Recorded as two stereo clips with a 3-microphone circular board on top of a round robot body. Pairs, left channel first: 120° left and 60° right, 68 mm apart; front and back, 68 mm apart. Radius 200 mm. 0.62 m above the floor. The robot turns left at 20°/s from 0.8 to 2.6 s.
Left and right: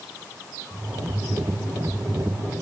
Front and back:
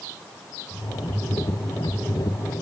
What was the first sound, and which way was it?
Only background noise.